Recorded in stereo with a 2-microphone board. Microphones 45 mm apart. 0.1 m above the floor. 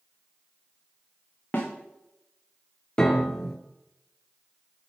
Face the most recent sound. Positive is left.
turn(degrees=15)  # may be behind; listen again after turning